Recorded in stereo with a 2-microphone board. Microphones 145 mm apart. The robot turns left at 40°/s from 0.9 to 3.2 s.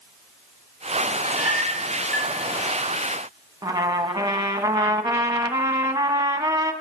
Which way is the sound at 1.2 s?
20° right (ahead or behind).